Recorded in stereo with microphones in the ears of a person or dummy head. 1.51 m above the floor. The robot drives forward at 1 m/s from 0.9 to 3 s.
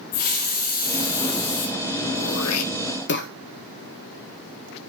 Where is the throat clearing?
65° left (ahead or behind), 0.7 m; by 3.3 s 50° left (ahead or behind), 0.8 m.